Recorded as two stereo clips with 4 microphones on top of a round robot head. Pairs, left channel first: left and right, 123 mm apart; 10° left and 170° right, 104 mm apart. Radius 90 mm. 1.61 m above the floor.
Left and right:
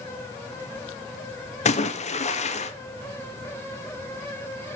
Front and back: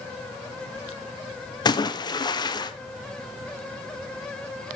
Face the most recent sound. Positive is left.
turn(degrees=60)